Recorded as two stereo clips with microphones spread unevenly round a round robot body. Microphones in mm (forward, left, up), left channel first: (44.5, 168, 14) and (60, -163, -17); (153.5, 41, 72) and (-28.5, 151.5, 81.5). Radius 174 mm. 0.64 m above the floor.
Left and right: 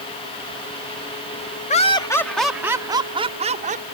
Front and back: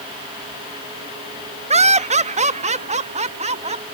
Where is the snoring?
I don't hear snoring.